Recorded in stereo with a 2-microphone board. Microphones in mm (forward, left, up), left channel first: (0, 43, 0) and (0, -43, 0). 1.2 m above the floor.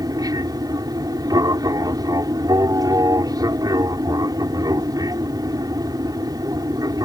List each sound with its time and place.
0.0 s an aircraft: 45° right (ahead or behind)